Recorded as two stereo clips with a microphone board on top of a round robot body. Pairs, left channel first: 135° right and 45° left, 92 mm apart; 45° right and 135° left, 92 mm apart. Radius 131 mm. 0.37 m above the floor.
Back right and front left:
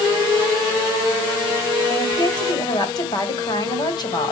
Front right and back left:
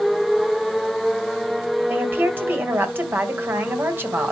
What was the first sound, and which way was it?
A woman speaking, 160° right.